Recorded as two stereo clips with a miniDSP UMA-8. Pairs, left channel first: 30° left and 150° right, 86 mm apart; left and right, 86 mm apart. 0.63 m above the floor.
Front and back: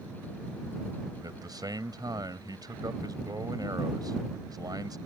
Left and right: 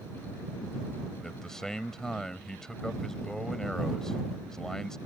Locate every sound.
1.2 s a man speaking: 170° left